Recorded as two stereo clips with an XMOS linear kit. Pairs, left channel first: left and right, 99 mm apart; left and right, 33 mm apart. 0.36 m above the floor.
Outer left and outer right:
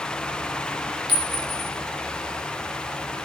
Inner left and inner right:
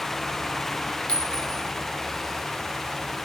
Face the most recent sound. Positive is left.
turn(degrees=45)  # may be behind; listen again after turning